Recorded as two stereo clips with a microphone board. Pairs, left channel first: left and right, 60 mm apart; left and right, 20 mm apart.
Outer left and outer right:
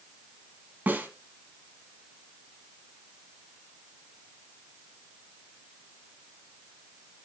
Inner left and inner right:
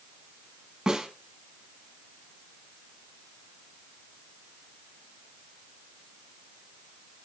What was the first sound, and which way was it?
A snare drum, 30° right (ahead or behind).